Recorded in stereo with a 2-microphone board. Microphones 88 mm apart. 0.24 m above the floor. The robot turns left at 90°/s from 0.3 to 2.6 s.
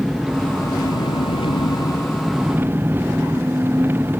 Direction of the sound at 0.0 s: 175° right.